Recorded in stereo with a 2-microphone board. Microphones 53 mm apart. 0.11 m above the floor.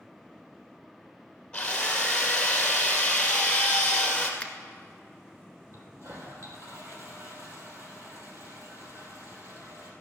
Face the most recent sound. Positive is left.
turn(degrees=-60)  # may be behind; listen again after turning